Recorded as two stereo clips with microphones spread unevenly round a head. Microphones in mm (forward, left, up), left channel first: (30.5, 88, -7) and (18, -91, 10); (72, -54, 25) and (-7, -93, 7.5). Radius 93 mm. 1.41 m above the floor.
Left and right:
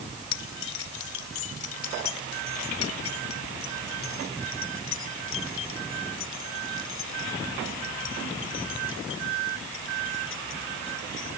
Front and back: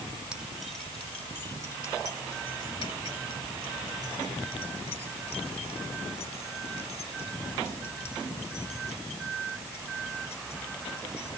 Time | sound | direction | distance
0.3 | keys jangling | 120° left | ?